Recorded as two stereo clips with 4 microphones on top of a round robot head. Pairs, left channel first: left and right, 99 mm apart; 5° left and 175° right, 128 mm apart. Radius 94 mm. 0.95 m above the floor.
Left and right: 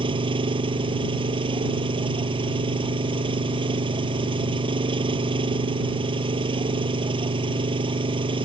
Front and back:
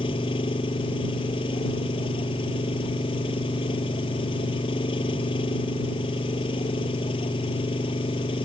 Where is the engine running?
55° right.